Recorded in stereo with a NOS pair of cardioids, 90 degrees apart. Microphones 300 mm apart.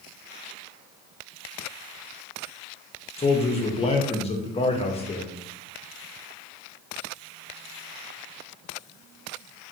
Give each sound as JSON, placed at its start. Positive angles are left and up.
{"t": 3.2, "sound": "a man speaking", "azimuth_deg": 20, "distance_m": 0.7}